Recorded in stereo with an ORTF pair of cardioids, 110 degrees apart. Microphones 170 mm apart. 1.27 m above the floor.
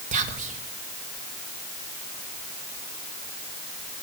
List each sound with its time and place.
0.1 s whispering: 45° right, 1.3 m